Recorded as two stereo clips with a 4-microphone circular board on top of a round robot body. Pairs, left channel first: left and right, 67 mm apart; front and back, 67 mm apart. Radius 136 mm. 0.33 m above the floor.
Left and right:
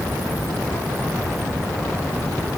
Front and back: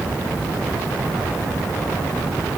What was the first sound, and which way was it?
Only background noise.